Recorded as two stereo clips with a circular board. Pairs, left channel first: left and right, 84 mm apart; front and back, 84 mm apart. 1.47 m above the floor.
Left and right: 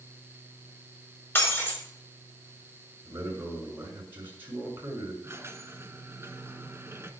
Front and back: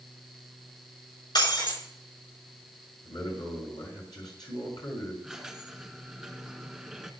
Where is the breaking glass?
25° left, 4.5 m.